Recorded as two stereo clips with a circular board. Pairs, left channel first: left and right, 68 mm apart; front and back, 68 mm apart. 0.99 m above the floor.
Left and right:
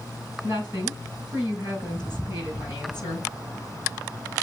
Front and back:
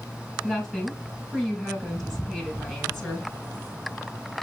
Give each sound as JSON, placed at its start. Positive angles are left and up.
{"t": 0.4, "sound": "a woman speaking", "azimuth_deg": 85, "distance_m": 5.0}